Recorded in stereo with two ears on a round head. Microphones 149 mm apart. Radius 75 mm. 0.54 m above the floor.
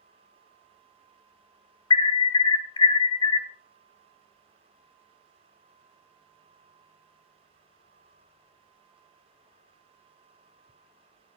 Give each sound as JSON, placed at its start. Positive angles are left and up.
{"t": 1.9, "sound": "an alarm", "side_deg": 25, "distance_m": 0.8}